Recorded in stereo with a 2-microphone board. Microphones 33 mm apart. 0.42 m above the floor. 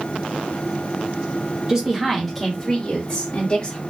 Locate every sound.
1.7 s a woman speaking: 20° right (ahead or behind), 1.0 m; by 3.8 s 30° left (ahead or behind), 1.8 m